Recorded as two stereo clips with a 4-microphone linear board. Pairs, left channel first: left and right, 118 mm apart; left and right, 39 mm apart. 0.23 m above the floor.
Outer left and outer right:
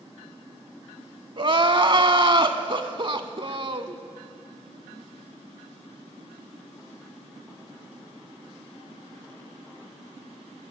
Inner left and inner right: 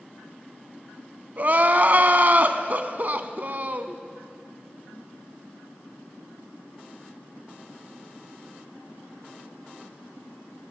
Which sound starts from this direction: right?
Crying, at 1.4 s.